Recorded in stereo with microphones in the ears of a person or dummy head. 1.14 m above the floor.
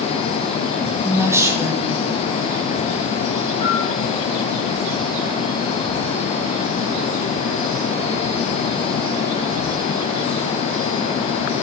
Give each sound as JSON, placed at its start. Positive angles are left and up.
{"t": 1.0, "sound": "a woman speaking", "side_deg": -15, "distance_m": 1.5}
{"t": 3.6, "sound": "a bell", "side_deg": 40, "distance_m": 4.5}